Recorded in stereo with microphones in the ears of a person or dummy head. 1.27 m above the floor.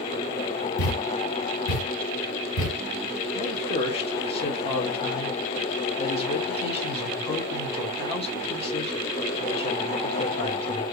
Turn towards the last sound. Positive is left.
turn(degrees=25)  # may be behind; listen again after turning